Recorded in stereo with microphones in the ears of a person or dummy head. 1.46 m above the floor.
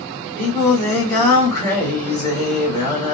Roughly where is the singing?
Centre.